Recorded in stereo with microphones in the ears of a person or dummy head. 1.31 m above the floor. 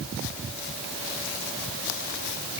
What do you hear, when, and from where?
Only background noise.